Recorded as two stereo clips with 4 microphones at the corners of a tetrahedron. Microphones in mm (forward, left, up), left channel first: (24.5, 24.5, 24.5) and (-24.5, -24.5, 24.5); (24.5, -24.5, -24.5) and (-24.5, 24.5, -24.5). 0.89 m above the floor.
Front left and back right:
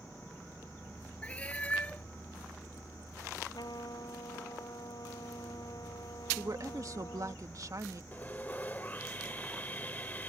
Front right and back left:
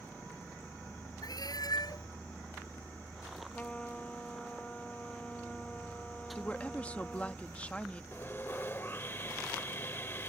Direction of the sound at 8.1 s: 5° right.